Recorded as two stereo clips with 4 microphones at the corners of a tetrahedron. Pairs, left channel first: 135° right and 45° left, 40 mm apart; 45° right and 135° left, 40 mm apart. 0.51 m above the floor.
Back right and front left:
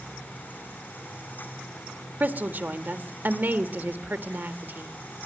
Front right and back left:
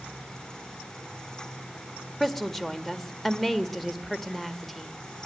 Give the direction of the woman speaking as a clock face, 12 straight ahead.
11 o'clock.